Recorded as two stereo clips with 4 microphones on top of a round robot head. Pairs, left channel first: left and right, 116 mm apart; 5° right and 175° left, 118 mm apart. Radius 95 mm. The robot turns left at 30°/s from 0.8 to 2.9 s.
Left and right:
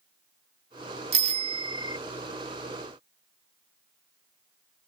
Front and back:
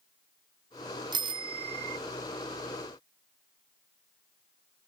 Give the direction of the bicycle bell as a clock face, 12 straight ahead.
4 o'clock.